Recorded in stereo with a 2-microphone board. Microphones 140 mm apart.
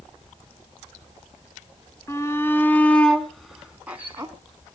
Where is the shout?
25° left (ahead or behind), 1.8 m; by 4.3 s 20° right (ahead or behind), 1.6 m.